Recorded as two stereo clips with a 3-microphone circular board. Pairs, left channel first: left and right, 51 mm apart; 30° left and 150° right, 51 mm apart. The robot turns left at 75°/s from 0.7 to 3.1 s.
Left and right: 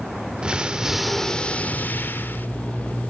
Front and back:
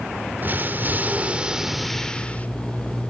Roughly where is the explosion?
Behind right.